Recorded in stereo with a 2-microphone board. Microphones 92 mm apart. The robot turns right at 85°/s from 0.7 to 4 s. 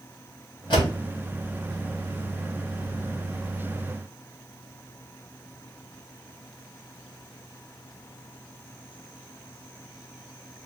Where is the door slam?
60° left (ahead or behind), 3 m; by 0.9 s 75° left (ahead or behind), 3 m.